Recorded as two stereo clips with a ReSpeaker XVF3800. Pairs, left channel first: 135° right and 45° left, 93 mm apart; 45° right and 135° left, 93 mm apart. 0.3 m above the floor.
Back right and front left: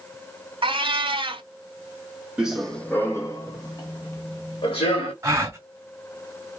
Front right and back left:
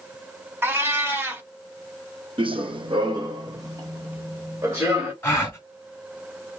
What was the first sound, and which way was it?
A cat meowing, 70° left.